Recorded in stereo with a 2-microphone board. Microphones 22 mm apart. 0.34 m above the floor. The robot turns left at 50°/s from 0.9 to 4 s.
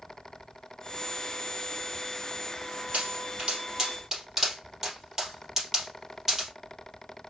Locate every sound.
2.9 s a pop: 70° right (ahead or behind), 2.5 m; by 6.5 s 20° right (ahead or behind), 2.5 m